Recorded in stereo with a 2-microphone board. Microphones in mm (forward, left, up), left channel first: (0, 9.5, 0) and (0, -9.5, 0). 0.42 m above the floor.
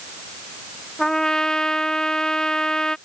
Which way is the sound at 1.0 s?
30° left (ahead or behind).